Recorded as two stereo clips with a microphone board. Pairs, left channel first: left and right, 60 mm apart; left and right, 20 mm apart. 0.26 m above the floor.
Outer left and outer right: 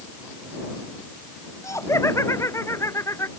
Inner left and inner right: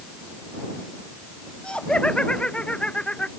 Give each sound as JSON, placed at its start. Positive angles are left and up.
{"t": 1.6, "sound": "laughter", "side_deg": 55}